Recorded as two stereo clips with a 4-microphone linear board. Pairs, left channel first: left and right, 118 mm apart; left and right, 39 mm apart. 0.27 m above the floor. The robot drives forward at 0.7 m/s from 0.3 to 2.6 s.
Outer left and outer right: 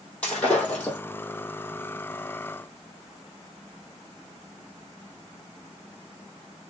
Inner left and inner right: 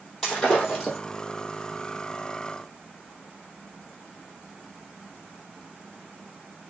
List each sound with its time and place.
0.2 s breaking glass: 10° left (ahead or behind), 3 m; by 1.0 s 15° left (ahead or behind), 2.5 m